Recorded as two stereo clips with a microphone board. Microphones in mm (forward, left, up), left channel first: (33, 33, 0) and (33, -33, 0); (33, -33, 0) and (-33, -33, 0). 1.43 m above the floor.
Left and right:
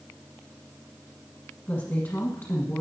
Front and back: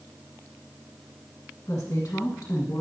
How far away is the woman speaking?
About 1.8 m.